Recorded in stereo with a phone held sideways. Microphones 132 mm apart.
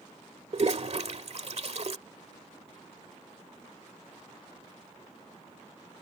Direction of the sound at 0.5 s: 55° right (ahead or behind).